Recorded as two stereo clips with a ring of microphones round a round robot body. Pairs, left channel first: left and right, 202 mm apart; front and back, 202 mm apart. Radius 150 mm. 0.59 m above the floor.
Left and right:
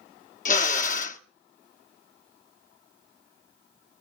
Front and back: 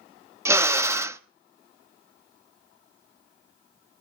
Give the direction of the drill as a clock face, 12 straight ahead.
8 o'clock.